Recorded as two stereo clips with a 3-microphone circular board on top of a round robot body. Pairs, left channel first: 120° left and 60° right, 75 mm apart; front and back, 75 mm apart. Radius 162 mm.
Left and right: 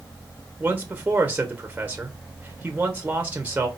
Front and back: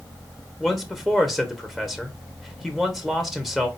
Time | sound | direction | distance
0.6 | a man speaking | 85° right | 1.4 m